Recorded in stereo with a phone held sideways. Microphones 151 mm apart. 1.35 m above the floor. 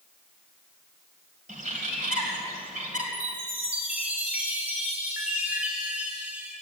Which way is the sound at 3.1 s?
10° right (ahead or behind).